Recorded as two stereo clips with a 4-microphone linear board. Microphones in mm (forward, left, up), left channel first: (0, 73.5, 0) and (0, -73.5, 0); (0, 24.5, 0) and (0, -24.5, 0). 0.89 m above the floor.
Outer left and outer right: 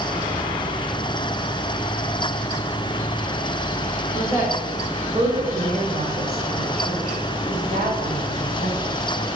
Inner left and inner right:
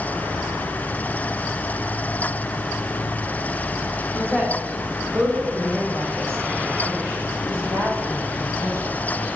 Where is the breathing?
No breathing in this recording.